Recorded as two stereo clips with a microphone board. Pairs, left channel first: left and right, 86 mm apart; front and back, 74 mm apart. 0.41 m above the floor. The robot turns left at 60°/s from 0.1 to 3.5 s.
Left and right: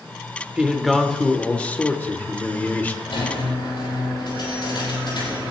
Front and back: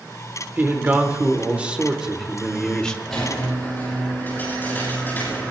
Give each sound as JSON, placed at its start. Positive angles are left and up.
{"t": 0.6, "sound": "a man speaking", "azimuth_deg": -160, "distance_m": 1.4}
{"t": 3.1, "sound": "a squeak", "azimuth_deg": 90, "distance_m": 8.0}